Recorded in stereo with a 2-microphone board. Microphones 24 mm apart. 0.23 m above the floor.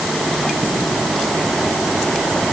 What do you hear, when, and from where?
Only background noise.